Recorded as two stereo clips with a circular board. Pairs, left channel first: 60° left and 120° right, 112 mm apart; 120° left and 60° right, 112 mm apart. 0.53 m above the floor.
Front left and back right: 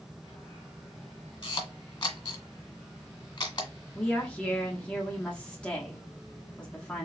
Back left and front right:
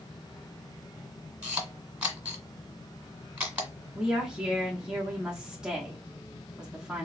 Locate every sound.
1.4 s a camera shutter: 15° left, 1.6 m
4.0 s a woman speaking: 5° left, 0.9 m